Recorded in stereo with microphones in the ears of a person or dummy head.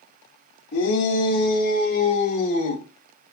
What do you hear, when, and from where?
0.7 s a shout: 60° left (ahead or behind), 3.5 m; by 2.8 s 40° left (ahead or behind), 4.5 m